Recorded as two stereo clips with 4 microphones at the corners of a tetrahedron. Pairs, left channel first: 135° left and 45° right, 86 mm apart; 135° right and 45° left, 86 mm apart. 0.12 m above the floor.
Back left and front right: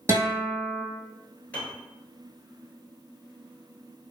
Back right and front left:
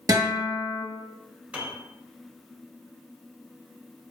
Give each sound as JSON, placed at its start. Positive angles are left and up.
{"t": 0.1, "sound": "a guitar", "azimuth_deg": 5, "distance_m": 0.9}
{"t": 1.5, "sound": "a piano", "azimuth_deg": 95, "distance_m": 0.9}